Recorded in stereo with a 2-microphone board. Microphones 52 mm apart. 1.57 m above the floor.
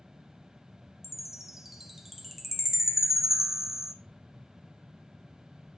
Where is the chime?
5° right (ahead or behind), 0.7 m.